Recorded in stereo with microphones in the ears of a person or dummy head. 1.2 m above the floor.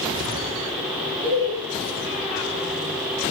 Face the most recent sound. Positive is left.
turn(degrees=-45)  # may be behind; listen again after turning